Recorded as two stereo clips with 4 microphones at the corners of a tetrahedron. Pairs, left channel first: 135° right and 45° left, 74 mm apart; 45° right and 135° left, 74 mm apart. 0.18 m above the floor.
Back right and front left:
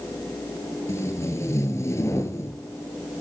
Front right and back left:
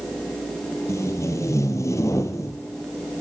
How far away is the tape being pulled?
About 1.1 m.